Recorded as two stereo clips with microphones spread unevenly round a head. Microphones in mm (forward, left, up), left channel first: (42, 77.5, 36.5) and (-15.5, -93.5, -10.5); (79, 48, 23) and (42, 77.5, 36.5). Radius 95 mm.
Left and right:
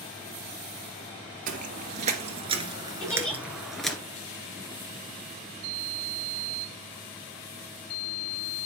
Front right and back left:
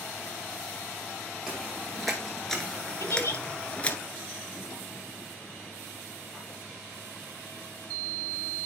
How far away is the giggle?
About 7.5 m.